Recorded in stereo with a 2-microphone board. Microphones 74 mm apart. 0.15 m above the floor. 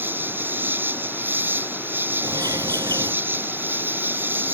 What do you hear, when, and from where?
0.0 s an insect: 25° right (ahead or behind)
2.2 s a bird: 55° right (ahead or behind)